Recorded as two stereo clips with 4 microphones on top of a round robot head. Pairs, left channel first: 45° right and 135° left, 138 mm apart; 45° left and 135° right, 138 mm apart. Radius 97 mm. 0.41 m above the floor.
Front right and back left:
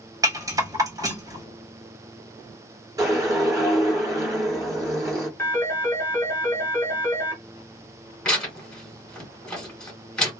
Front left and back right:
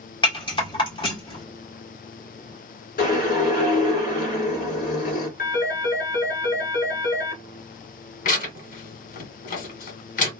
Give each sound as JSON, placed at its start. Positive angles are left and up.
{"t": 0.2, "sound": "a rattle", "azimuth_deg": 80, "distance_m": 1.9}
{"t": 3.0, "sound": "a whoosh", "azimuth_deg": 70, "distance_m": 1.9}
{"t": 5.4, "sound": "a phone ringing", "azimuth_deg": 30, "distance_m": 1.6}
{"t": 8.2, "sound": "tearing paper", "azimuth_deg": 40, "distance_m": 2.0}